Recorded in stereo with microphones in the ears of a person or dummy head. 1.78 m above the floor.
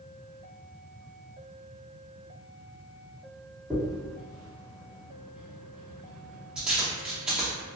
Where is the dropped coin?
10° right (ahead or behind), 1.4 m.